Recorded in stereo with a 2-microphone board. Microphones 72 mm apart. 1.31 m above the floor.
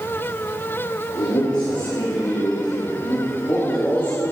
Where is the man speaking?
85° left, 3.5 m; by 4.2 s 25° left (ahead or behind), 3.5 m.